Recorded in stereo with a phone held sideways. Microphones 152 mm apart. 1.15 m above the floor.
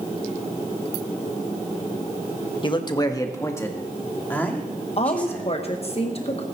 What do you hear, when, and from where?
2.6 s a man speaking: 35° left (ahead or behind), 1.1 m; by 5.5 s 10° left (ahead or behind), 3 m
5.0 s a woman speaking: 45° left (ahead or behind), 1.0 m